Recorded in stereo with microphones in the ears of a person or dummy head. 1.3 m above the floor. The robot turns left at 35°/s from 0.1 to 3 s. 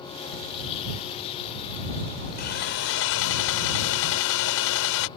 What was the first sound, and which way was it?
Sawing, 55° left (ahead or behind).